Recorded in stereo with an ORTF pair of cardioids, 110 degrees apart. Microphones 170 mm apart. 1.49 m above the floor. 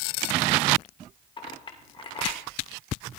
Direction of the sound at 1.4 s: 30° left.